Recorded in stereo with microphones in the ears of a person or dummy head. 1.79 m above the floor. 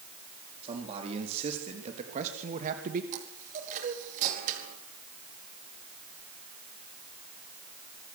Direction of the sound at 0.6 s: 35° right (ahead or behind).